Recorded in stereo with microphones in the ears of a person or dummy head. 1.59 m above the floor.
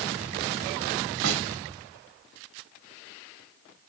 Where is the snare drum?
75° right (ahead or behind), 3 m.